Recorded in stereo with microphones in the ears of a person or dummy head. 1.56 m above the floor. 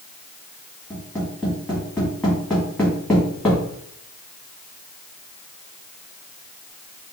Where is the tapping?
10° left (ahead or behind), 2.0 m.